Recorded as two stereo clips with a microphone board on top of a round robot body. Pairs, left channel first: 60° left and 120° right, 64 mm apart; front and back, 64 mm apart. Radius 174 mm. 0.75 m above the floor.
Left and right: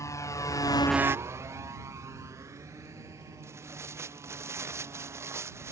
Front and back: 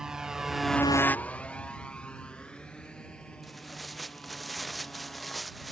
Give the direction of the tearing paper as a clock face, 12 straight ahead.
3 o'clock.